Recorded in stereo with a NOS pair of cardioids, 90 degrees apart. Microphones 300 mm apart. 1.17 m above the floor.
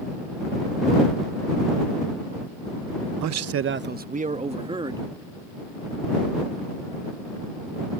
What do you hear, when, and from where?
3.2 s a man speaking: 70° right; by 5.0 s 10° right